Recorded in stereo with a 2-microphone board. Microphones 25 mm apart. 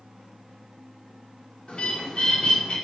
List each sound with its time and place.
1.7 s a bird: 50° left (ahead or behind), 2.0 m